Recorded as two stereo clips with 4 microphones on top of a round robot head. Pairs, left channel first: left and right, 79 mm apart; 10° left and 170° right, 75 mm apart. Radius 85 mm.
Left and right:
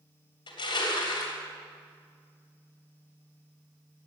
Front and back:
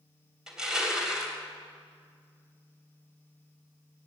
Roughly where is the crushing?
Left.